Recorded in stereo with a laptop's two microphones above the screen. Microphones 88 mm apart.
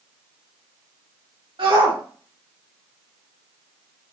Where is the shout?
75° right (ahead or behind), 1.8 m.